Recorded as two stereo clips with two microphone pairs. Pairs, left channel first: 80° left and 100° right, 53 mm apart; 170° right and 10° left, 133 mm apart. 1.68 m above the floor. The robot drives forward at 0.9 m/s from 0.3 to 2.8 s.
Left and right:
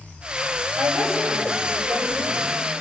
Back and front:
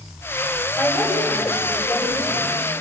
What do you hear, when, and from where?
0.8 s a woman speaking: 85° right, 8.5 m; by 2.5 s 100° right, 8.5 m